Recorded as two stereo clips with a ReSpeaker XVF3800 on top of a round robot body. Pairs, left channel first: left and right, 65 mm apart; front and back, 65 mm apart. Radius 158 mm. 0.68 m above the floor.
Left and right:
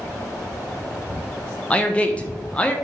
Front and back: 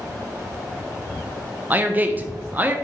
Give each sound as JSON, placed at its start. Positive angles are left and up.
{"t": 1.7, "sound": "a man speaking", "azimuth_deg": 145, "distance_m": 0.6}